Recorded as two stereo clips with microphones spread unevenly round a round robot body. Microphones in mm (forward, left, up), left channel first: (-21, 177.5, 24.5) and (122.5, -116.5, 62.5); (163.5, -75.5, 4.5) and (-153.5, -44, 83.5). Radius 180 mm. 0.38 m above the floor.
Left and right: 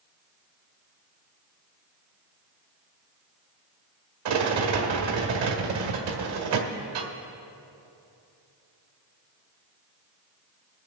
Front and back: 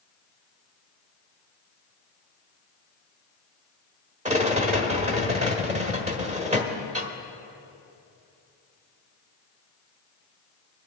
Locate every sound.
4.2 s a rattle: 110° right, 1.4 m